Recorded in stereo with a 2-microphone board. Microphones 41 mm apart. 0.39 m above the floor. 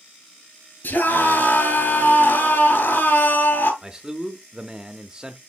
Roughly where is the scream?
Left.